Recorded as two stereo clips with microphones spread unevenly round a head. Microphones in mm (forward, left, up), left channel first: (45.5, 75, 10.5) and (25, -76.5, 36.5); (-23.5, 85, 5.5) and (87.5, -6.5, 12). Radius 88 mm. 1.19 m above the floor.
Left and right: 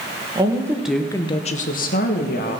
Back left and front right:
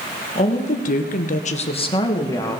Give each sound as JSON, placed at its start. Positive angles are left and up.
{"t": 0.3, "sound": "a woman speaking", "azimuth_deg": -165, "distance_m": 1.5}